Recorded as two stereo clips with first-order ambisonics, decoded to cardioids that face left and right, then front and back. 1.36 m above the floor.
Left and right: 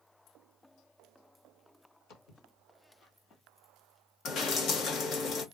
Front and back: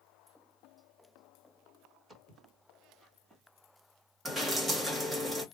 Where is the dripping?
110° left, 1.2 m.